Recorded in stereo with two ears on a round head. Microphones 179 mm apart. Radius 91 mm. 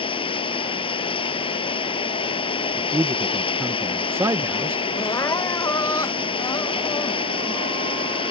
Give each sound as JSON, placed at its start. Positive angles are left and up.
{"t": 0.0, "sound": "running water", "side_deg": 25}
{"t": 2.8, "sound": "a man speaking", "side_deg": -10}
{"t": 5.0, "sound": "crying", "side_deg": 15}